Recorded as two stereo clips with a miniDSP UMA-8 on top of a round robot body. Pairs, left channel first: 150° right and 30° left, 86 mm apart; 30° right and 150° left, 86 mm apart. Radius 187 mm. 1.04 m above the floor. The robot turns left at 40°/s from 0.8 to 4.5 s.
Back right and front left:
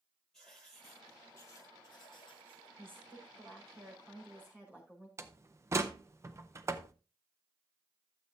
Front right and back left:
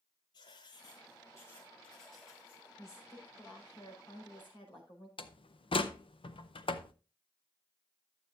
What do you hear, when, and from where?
0.3 s writing: 60° right, 1.0 m; by 2.7 s 135° right, 1.0 m
2.8 s a woman speaking: 30° left, 5 m; by 5.1 s 40° right, 5 m
5.2 s a door slam: 25° right, 0.8 m